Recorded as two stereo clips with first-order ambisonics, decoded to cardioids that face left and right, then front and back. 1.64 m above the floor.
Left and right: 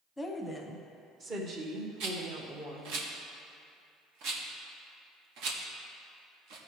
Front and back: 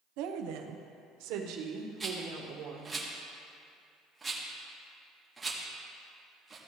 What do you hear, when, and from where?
0.2 s a woman speaking: 170° left, 1.0 m; by 3.0 s 130° right, 1.9 m
2.0 s a rattle: 100° right, 1.1 m